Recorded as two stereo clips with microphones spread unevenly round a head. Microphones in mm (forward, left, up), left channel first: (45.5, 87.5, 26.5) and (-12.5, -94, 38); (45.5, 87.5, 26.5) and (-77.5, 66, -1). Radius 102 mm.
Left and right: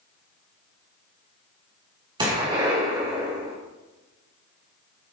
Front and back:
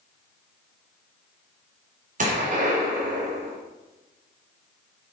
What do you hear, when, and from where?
2.2 s a gunshot: 175° right, 3 m